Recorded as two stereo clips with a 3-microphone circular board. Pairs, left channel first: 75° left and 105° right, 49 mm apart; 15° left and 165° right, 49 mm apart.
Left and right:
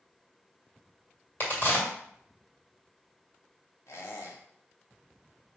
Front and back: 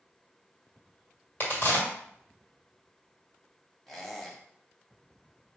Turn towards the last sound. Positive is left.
turn(degrees=100)